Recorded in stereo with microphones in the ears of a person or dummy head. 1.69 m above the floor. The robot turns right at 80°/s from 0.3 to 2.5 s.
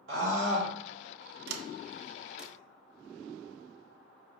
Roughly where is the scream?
Right.